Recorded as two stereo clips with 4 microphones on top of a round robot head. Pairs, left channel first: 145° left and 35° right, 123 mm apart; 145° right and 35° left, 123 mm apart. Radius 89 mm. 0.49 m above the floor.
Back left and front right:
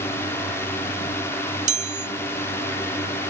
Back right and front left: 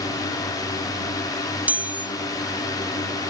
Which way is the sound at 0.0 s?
165° right.